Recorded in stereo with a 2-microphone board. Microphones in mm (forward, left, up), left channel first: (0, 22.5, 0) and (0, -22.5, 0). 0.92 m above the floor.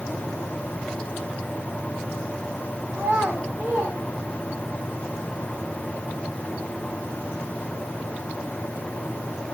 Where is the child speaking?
70° right (ahead or behind), 8.5 m; by 4.8 s 85° right, 8.5 m.